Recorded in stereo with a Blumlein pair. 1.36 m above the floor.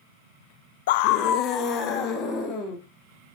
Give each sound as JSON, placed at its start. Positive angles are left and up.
{"t": 0.9, "sound": "a scream", "azimuth_deg": 55, "distance_m": 0.6}